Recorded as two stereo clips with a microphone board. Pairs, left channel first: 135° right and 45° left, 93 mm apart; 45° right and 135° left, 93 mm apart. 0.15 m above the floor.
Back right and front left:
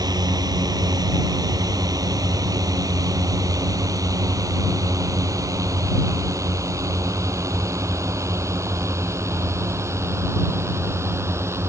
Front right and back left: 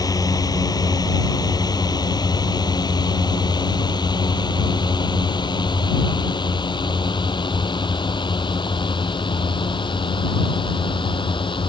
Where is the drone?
Straight ahead; by 11.7 s 15° right.